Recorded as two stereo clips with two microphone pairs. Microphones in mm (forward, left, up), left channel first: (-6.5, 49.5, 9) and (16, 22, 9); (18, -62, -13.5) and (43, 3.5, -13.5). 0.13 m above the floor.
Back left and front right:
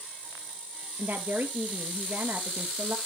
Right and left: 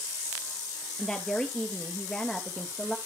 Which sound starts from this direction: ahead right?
A woman speaking, at 1.0 s.